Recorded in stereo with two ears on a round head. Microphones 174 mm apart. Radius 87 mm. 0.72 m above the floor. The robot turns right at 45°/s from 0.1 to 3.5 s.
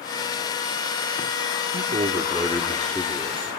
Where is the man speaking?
50° right, 1.7 m; by 3.5 s 35° left, 1.7 m.